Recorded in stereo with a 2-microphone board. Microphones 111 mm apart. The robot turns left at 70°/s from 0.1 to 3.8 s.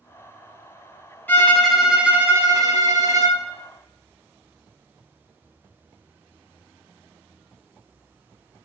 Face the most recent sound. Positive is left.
turn(degrees=-145)